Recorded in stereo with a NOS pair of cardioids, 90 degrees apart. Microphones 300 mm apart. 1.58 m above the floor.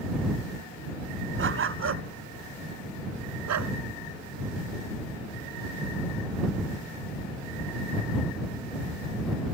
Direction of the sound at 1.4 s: 40° right.